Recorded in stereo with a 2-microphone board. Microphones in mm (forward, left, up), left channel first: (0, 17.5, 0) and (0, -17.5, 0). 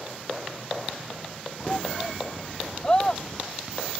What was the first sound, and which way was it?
A shout, 20° left (ahead or behind).